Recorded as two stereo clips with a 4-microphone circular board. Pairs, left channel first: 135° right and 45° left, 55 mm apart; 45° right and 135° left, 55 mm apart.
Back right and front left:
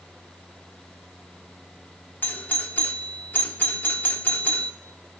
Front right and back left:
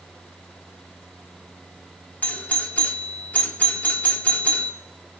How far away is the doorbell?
About 1.4 m.